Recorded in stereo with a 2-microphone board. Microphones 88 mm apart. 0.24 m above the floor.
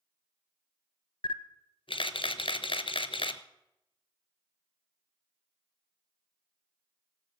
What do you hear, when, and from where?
1.2 s a camera shutter: 90° left, 0.6 m